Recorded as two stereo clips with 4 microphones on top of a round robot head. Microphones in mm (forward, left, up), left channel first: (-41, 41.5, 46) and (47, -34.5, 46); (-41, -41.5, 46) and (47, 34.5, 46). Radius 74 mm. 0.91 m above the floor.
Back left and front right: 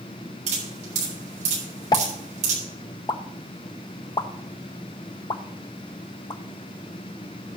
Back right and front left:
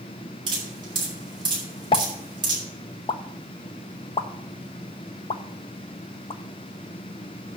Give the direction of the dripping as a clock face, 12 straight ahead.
12 o'clock.